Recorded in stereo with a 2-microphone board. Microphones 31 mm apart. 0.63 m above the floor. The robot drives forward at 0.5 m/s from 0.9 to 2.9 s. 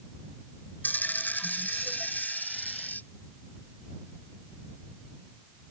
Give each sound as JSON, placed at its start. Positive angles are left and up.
{"t": 0.8, "sound": "a dropped coin", "side_deg": 80}